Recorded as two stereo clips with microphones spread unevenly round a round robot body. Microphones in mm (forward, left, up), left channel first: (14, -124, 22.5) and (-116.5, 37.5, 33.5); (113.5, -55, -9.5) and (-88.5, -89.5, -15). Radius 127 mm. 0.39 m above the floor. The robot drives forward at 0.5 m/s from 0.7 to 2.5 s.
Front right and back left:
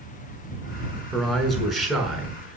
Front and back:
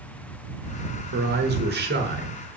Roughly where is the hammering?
No hammering in this recording.